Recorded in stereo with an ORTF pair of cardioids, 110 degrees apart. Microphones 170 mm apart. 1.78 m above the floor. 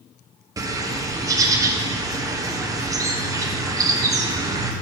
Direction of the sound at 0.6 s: 20° right.